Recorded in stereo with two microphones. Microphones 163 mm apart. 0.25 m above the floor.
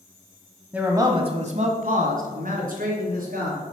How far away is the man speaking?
About 1.1 m.